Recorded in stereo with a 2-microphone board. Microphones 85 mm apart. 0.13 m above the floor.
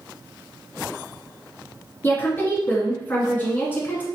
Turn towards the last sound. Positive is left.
turn(degrees=25)  # may be behind; listen again after turning